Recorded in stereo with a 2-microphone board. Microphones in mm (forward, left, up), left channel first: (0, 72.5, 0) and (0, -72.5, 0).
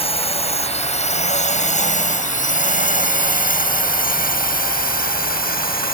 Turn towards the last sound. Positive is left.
turn(degrees=80)